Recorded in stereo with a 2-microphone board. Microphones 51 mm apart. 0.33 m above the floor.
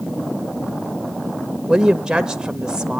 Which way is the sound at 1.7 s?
15° right (ahead or behind).